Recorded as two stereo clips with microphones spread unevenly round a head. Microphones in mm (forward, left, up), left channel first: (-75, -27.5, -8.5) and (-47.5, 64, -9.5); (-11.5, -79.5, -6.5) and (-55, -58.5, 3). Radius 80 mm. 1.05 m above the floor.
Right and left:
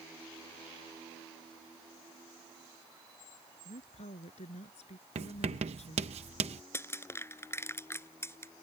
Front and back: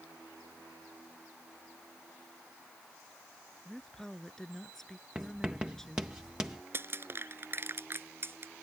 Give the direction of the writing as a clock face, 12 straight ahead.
10 o'clock.